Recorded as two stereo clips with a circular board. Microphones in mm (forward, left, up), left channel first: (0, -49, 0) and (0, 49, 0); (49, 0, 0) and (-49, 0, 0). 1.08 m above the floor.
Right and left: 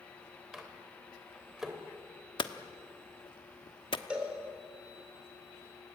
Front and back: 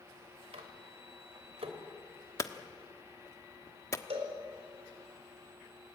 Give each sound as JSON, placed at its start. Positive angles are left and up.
{"t": 0.5, "sound": "a microwave", "azimuth_deg": 175, "distance_m": 3.0}
{"t": 2.4, "sound": "hammering", "azimuth_deg": -60, "distance_m": 1.2}
{"t": 4.1, "sound": "a cowbell", "azimuth_deg": 170, "distance_m": 4.5}